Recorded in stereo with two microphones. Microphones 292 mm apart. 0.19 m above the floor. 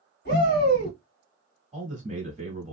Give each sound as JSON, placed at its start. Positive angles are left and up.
{"t": 0.2, "sound": "a shout", "side_deg": 35, "distance_m": 1.7}
{"t": 1.7, "sound": "a man speaking", "side_deg": -25, "distance_m": 1.3}